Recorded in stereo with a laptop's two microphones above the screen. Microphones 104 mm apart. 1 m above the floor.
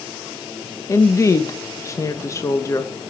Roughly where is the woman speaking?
Left.